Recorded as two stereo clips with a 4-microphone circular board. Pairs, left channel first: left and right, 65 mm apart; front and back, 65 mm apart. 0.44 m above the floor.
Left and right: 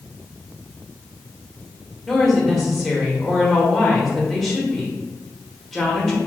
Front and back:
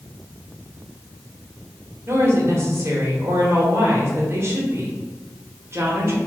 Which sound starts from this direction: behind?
A woman speaking, at 2.1 s.